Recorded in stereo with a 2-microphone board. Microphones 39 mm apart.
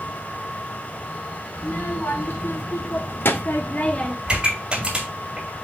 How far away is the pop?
About 2.5 m.